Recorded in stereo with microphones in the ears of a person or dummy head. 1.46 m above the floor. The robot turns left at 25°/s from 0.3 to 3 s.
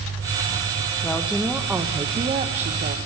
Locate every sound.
1.0 s a woman speaking: 5° left, 0.6 m; by 3.0 s 45° right, 0.6 m